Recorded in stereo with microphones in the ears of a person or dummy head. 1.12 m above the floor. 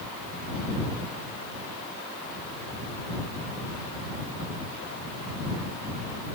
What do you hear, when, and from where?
Only background noise.